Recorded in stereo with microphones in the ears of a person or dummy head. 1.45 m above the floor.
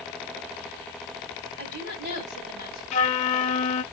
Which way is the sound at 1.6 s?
60° right (ahead or behind).